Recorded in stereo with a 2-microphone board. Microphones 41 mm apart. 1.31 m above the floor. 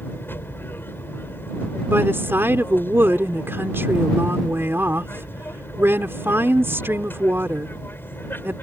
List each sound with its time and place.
0.0 s an aircraft: 65° left (ahead or behind)
1.9 s a woman speaking: 90° right